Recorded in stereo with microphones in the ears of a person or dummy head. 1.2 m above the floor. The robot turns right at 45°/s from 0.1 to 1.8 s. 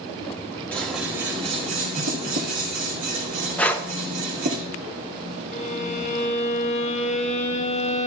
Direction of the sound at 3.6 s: Centre (ahead or behind).